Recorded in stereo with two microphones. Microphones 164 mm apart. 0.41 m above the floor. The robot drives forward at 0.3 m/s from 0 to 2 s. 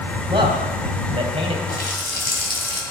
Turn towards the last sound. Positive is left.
turn(degrees=75)  # may be behind; listen again after turning